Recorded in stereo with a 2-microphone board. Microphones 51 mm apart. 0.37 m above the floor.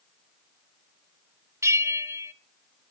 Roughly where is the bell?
Right.